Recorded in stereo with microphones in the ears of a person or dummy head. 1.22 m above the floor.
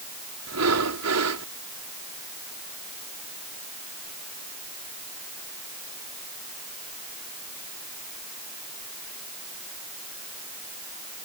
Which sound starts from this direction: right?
Breathing, at 0.5 s.